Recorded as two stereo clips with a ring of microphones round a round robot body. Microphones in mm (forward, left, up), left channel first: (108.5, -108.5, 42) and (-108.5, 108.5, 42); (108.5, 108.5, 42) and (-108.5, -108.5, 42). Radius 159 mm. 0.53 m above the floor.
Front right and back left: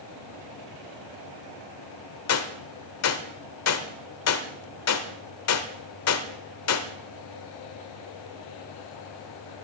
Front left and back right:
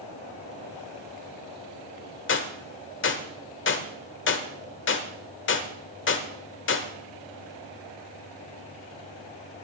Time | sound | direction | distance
2.3 | a gunshot | 5° right | 1.3 m